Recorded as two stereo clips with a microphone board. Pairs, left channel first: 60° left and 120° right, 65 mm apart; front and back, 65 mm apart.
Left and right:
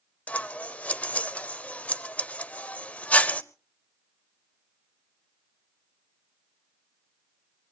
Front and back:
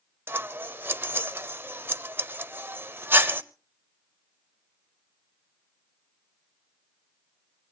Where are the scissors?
130° left, 0.6 m.